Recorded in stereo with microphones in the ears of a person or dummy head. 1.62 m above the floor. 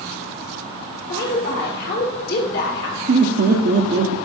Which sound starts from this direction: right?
Laughter, at 3.1 s.